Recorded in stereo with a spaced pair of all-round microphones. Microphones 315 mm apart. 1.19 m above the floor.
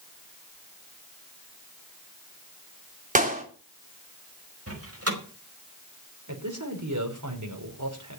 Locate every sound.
3.1 s a clap: 25° right (ahead or behind), 3.5 m
4.7 s a door slam: 50° right (ahead or behind), 5 m
6.3 s a man speaking: 65° right (ahead or behind), 4.5 m